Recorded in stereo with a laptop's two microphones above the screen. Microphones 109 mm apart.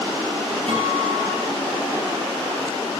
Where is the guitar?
60° right (ahead or behind), 6 m.